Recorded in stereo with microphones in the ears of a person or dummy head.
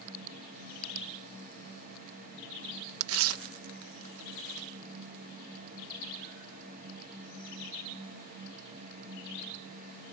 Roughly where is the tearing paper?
Right.